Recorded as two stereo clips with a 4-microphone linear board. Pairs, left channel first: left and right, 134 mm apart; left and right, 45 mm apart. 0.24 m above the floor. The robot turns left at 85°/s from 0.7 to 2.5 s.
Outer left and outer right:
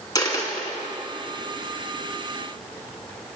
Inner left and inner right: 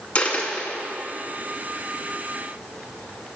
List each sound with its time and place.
0.1 s a dropped coin: 30° left (ahead or behind), 1.0 m; by 0.8 s 20° left (ahead or behind), 1.0 m